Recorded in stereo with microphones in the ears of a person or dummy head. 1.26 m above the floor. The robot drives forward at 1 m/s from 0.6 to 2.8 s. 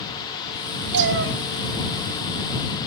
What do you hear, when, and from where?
0.9 s a cat meowing: 65° right (ahead or behind), 1.0 m